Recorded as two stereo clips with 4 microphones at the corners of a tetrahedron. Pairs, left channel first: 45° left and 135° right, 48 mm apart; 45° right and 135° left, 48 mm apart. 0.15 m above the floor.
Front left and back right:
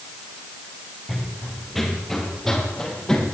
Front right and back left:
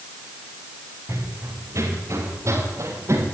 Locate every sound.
1.1 s running footsteps: 140° left, 6 m; by 3.2 s 125° left, 8 m